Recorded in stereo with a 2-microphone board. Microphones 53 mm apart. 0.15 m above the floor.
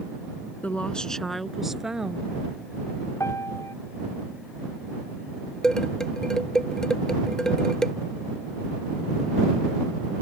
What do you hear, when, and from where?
0.6 s a woman speaking: 30° left (ahead or behind); by 2.3 s 15° right (ahead or behind)
3.2 s a piano: 70° left (ahead or behind)
5.6 s dishes clattering: 10° left (ahead or behind)